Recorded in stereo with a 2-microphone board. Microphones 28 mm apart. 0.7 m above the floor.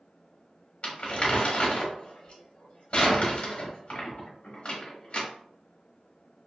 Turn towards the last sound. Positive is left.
turn(degrees=45)  # may be behind; listen again after turning